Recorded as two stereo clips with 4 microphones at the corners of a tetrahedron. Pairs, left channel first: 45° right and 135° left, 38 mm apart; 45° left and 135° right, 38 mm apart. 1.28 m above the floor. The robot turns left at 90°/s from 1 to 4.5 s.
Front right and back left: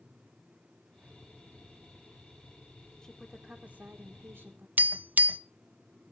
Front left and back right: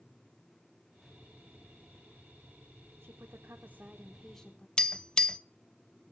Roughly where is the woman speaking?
Behind right.